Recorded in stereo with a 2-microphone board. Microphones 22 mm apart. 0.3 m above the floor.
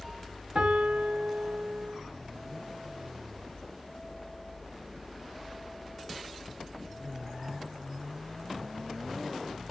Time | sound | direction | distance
0.6 | a piano | 70° right (ahead or behind) | 4 m